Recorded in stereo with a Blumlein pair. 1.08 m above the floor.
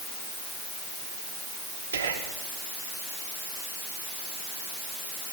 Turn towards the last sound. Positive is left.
turn(degrees=-65)